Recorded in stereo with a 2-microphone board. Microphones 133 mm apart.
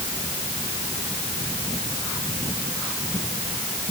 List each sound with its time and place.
Only background noise.